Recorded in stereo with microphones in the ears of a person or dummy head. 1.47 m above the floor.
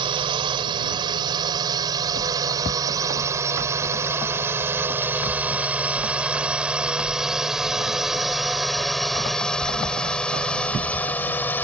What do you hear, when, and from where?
0.0 s a drone: 30° right (ahead or behind); by 11.6 s 10° left (ahead or behind)